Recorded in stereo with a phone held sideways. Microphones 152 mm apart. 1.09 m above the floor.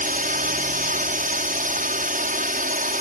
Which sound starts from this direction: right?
A drone, at 0.0 s.